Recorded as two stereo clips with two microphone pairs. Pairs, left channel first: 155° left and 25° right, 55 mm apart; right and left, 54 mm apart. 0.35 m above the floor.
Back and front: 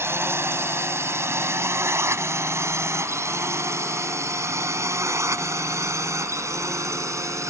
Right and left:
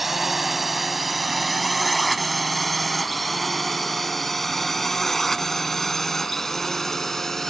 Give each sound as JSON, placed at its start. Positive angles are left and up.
{"t": 0.0, "sound": "a drone", "azimuth_deg": 5}